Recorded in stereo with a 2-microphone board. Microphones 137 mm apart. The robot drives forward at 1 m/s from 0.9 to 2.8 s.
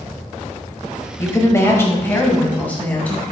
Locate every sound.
1.2 s a woman speaking: 20° left (ahead or behind), 1.1 m; by 3.2 s 10° left (ahead or behind), 1.8 m